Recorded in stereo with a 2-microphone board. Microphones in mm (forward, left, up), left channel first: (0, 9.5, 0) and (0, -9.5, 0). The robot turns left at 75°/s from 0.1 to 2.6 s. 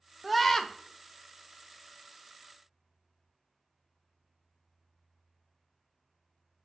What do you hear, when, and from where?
0.2 s a scream: 170° right, 0.5 m; by 0.7 s 155° left, 0.5 m